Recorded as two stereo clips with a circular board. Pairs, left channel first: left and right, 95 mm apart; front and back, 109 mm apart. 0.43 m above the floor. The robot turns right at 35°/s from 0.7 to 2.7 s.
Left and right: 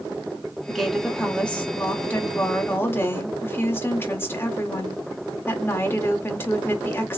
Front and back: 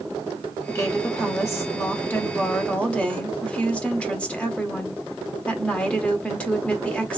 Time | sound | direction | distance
0.7 | a woman speaking | straight ahead | 0.8 m